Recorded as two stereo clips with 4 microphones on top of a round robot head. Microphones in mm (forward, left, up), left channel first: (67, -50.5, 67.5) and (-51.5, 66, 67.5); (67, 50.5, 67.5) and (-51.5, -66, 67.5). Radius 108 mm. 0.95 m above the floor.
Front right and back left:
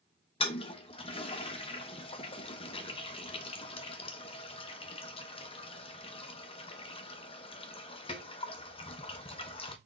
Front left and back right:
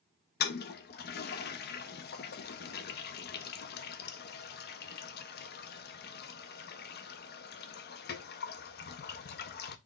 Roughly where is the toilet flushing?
Ahead.